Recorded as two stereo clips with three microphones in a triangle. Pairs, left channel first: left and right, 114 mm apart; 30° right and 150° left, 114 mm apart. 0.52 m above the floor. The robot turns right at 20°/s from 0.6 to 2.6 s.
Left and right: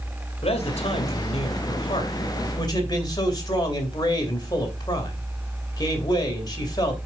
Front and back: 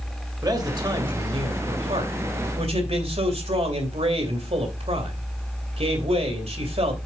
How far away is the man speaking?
About 2.5 m.